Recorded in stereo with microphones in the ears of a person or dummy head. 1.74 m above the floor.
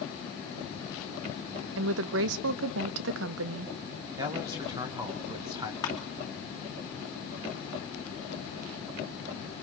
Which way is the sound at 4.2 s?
25° right (ahead or behind).